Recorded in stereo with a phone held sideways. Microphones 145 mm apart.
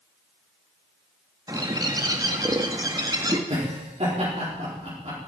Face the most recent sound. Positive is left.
turn(degrees=-50)  # may be behind; listen again after turning